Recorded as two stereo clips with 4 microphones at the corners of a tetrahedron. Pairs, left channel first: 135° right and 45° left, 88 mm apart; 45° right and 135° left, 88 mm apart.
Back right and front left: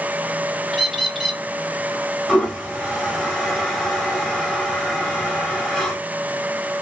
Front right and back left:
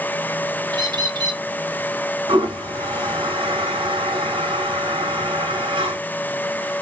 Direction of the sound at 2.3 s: 135° left.